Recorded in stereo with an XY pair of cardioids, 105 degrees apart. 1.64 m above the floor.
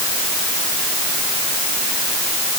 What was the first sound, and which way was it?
Only background noise.